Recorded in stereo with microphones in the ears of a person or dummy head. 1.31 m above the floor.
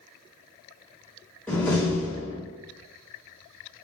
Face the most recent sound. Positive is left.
turn(degrees=10)  # may be behind; listen again after turning